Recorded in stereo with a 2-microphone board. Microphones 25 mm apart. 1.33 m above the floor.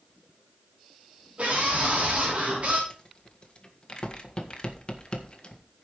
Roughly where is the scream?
Right.